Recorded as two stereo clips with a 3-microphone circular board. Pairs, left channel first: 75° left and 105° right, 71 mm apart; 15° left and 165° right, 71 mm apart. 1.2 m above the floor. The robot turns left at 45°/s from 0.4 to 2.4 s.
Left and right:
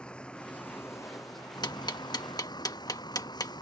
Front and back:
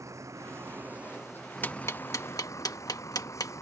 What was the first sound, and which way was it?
A vehicle, 150° left.